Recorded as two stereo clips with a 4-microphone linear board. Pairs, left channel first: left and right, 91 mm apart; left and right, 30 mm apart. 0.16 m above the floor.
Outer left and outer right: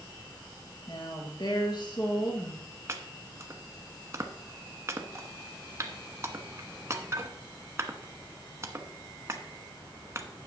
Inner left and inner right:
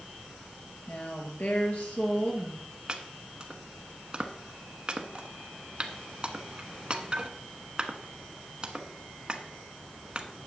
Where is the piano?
I don't hear a piano.